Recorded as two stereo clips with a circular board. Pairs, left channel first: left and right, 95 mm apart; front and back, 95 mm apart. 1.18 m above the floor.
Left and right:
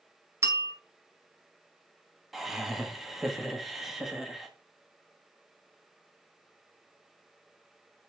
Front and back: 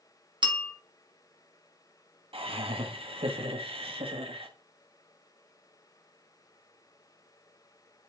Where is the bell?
150° right, 1.4 m.